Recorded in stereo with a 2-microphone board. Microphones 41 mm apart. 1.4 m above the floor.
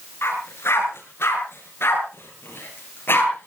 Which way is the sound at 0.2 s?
80° left.